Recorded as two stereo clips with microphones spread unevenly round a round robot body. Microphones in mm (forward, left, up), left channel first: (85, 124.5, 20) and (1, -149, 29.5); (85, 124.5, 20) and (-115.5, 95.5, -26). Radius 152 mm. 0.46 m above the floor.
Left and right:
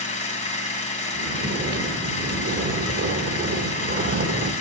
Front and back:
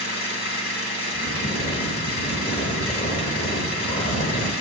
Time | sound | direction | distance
0.0 | an engine running | 5° left | 1.8 m
1.1 | snoring | 55° right | 1.0 m